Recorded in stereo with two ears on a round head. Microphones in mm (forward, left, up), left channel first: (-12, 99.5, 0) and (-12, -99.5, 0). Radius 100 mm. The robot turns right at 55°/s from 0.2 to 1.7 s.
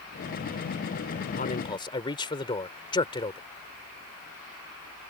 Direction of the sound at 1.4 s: 40° left (ahead or behind).